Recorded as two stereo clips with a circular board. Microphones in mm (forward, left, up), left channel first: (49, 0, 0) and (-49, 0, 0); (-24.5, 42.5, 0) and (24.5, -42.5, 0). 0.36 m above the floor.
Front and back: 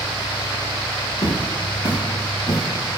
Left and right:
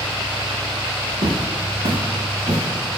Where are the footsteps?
40° right, 6 m; by 3.0 s 30° right, 8 m.